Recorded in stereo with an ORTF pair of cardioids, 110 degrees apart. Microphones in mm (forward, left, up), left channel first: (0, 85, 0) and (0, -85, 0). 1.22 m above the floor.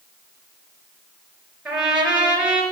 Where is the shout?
No shout in this recording.